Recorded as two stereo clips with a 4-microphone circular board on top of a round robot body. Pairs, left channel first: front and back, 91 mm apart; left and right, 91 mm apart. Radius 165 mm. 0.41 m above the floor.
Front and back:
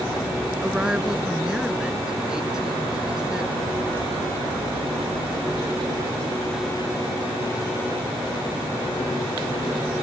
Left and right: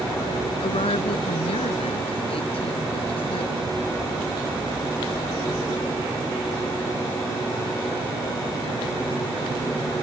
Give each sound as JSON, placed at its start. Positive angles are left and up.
{"t": 0.6, "sound": "a woman speaking", "azimuth_deg": 100}